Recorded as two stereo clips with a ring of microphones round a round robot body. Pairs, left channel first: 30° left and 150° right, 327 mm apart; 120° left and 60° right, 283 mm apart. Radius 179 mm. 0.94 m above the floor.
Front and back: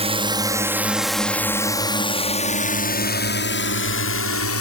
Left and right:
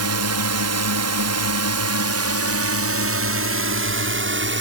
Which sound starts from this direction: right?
A drone, at 0.0 s.